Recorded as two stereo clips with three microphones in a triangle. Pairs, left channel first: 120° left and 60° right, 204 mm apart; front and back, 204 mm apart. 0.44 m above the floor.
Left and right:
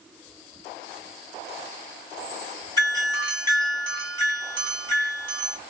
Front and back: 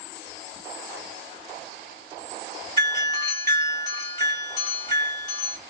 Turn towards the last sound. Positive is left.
turn(degrees=60)